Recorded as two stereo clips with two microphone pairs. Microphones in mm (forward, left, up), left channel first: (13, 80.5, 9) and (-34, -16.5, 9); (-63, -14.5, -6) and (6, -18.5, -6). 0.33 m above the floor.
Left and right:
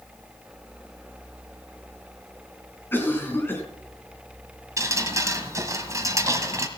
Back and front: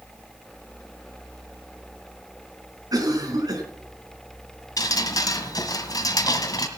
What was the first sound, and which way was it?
A cough, 5° right.